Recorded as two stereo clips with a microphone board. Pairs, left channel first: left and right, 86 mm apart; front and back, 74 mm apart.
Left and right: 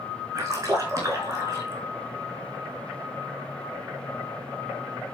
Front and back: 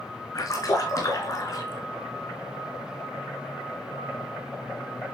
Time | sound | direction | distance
0.3 | a splash | 35° right | 4.5 m